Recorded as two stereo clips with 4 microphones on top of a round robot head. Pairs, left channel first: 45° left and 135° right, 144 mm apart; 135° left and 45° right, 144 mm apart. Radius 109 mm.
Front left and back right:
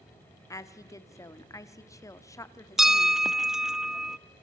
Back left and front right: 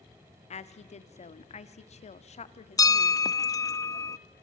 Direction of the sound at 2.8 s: 145° left.